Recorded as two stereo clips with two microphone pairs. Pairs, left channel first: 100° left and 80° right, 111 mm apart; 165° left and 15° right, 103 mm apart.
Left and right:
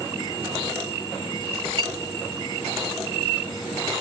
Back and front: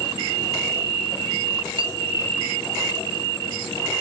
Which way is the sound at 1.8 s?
45° right.